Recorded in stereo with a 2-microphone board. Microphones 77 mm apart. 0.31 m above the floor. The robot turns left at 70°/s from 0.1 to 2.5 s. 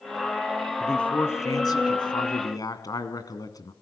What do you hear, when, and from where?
0.8 s a man speaking: straight behind, 2.5 m; by 3.7 s 60° left, 2.5 m